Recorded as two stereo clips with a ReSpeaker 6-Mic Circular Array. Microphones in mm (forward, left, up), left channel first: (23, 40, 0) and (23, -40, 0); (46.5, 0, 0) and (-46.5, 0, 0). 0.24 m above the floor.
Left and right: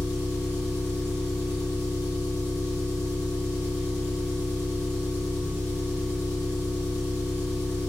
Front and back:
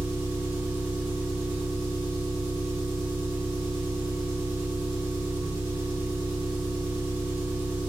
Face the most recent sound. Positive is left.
turn(degrees=-30)